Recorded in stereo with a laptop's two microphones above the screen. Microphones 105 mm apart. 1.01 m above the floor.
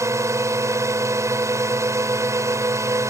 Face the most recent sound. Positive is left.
turn(degrees=-25)  # may be behind; listen again after turning